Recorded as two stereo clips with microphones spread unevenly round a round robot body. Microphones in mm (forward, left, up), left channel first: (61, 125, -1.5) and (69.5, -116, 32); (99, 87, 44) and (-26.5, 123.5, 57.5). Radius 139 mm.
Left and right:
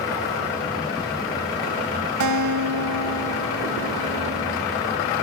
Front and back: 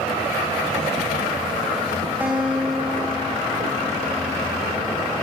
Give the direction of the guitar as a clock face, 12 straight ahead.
4 o'clock.